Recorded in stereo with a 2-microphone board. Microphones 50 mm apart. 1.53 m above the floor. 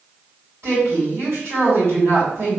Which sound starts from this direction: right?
A woman speaking, at 0.6 s.